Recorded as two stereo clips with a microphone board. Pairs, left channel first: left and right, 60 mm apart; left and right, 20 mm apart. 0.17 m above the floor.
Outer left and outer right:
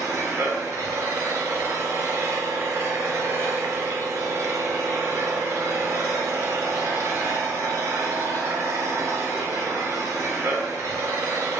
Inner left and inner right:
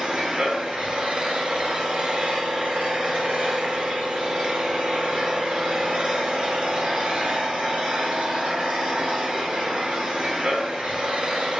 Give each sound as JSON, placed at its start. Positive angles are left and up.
{"t": 0.0, "sound": "an engine running", "side_deg": -65, "distance_m": 0.8}